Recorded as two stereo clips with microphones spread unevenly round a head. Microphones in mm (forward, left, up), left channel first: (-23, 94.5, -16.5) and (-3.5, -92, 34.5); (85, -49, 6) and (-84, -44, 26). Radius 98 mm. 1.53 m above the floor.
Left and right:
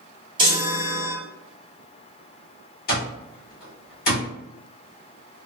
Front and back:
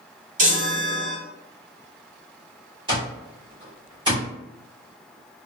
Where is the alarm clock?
135° left, 1.3 m.